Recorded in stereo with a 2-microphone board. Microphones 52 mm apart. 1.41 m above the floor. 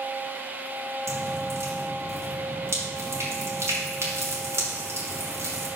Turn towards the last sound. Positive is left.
turn(degrees=-65)  # may be behind; listen again after turning